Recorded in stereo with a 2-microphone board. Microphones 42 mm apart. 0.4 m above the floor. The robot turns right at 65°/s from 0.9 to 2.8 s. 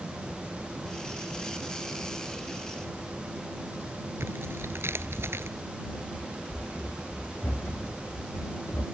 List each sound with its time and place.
4.2 s tearing paper: 60° right (ahead or behind)
5.8 s running footsteps: 65° left (ahead or behind); by 8.8 s 75° left (ahead or behind)